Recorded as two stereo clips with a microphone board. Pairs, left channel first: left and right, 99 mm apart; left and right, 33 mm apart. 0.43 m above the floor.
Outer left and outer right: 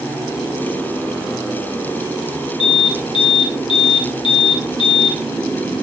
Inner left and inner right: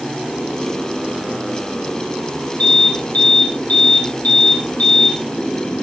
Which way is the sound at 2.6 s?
55° left (ahead or behind).